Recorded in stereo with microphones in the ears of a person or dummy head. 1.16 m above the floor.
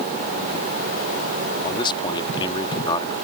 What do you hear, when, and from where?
1.6 s a man speaking: 25° left (ahead or behind)